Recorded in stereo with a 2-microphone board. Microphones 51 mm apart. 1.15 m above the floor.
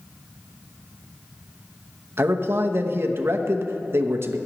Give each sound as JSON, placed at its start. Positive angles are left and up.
{"t": 2.2, "sound": "a man speaking", "side_deg": -50, "distance_m": 0.8}